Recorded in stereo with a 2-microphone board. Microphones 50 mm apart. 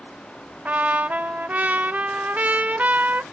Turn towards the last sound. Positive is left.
turn(degrees=-35)  # may be behind; listen again after turning